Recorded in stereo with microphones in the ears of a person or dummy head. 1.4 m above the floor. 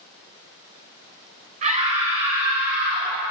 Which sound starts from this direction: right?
A scream, at 1.6 s.